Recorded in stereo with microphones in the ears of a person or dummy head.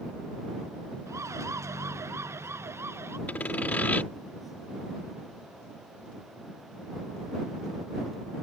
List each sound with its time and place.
1.1 s a siren: 15° right (ahead or behind); by 3.2 s 10° right (ahead or behind)
3.3 s sawing: 10° left (ahead or behind)